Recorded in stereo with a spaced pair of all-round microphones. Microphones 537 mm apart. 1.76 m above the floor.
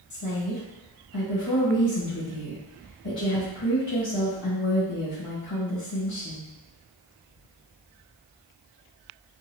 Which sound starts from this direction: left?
A woman speaking, at 0.1 s.